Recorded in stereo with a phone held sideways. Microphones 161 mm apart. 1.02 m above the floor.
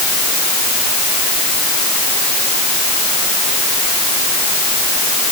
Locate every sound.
Only background noise.